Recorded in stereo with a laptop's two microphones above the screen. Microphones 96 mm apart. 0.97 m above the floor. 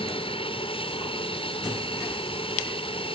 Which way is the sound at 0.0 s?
65° left (ahead or behind).